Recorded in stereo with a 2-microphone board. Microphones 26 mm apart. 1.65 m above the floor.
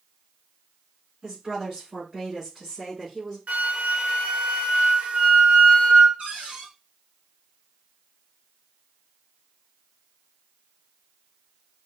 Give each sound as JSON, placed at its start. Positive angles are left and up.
{"t": 1.2, "sound": "a woman speaking", "side_deg": -30, "distance_m": 3.5}
{"t": 3.5, "sound": "a flute", "side_deg": -55, "distance_m": 0.8}
{"t": 6.2, "sound": "a cupboard door", "side_deg": -55, "distance_m": 1.7}